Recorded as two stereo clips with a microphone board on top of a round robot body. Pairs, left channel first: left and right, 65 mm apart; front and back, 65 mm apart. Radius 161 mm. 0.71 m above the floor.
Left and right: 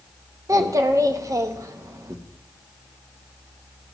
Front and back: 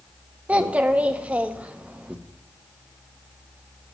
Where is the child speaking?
110° right, 1.2 m.